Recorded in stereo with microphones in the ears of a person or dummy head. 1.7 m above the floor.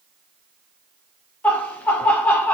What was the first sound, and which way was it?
Laughter, 10° left (ahead or behind).